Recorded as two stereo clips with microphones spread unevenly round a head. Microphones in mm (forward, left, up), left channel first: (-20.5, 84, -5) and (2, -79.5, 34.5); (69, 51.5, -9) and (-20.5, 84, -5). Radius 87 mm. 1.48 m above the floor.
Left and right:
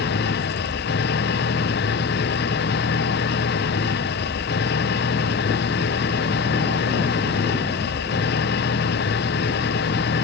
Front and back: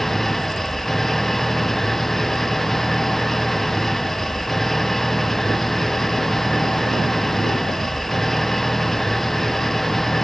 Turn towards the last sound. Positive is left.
turn(degrees=65)